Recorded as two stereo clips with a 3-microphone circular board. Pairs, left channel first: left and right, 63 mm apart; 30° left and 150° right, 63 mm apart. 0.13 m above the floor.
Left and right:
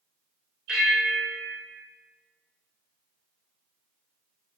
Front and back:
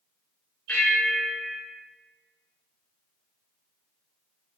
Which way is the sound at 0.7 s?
15° right.